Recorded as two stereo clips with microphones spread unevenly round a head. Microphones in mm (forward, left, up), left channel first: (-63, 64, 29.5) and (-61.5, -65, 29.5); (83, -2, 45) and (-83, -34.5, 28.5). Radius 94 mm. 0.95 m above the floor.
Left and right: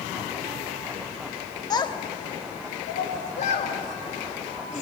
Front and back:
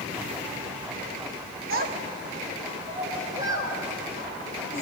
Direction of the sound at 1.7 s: 150° left.